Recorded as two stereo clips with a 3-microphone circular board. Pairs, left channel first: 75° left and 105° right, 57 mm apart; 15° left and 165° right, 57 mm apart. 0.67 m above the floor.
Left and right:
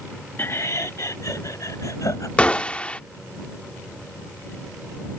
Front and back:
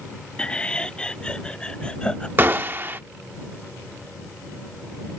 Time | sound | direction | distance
0.4 | laughter | 75° left | ?
2.4 | a gunshot | 140° left | ?